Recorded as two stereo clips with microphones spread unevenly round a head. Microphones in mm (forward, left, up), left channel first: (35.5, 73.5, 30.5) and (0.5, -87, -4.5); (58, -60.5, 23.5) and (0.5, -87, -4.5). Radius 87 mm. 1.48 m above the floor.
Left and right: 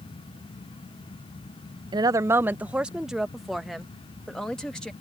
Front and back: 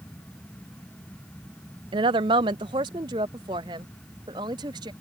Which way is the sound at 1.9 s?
175° right.